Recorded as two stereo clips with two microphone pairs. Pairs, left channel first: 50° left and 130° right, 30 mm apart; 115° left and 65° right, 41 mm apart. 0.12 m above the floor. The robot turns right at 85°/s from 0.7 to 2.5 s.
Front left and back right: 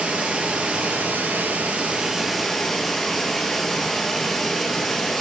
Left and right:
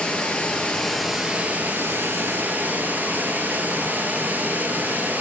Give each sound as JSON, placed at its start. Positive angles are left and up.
{"t": 0.0, "sound": "running water", "azimuth_deg": 180, "distance_m": 1.5}